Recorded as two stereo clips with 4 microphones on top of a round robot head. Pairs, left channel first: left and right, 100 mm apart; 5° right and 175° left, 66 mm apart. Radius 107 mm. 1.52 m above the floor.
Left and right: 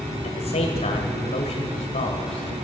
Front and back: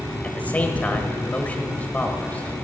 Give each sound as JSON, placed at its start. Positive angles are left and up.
{"t": 0.2, "sound": "a man speaking", "azimuth_deg": 65, "distance_m": 1.4}